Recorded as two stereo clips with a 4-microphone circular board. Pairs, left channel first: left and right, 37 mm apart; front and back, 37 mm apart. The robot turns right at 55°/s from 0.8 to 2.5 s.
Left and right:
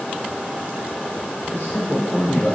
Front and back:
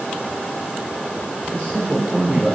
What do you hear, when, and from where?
1.5 s a man speaking: 50° left, 2.5 m; by 2.5 s 110° left, 2.5 m